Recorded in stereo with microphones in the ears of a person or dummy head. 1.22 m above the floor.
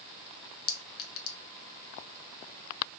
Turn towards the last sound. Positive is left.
turn(degrees=65)  # may be behind; listen again after turning